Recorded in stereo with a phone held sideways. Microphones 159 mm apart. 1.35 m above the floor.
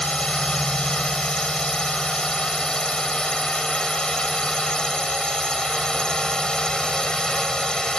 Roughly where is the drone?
Centre.